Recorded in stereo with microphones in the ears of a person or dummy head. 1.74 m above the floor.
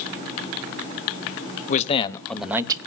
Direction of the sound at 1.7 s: 45° left (ahead or behind).